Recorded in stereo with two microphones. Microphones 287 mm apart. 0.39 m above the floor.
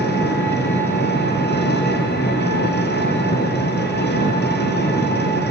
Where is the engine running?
35° left (ahead or behind), 3.5 m.